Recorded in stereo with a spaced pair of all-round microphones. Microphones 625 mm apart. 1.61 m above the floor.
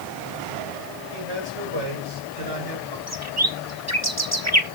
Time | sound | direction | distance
1.1 | a man speaking | 45° right (ahead or behind) | 8 m
3.1 | a bird | 25° right (ahead or behind) | 1.3 m